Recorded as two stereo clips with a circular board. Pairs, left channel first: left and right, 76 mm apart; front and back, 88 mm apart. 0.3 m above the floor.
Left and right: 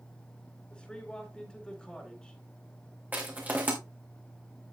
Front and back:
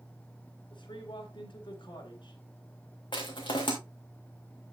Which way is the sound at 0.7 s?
15° left.